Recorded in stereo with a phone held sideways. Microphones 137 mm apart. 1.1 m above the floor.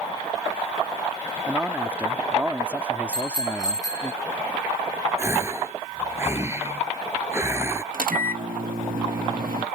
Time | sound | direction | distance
1.5 | a man speaking | 10° right (ahead or behind) | ?
3.1 | a bicycle bell | 25° left (ahead or behind) | ?
5.2 | a gasp | 20° right (ahead or behind) | ?
7.9 | a microwave | 85° right | ?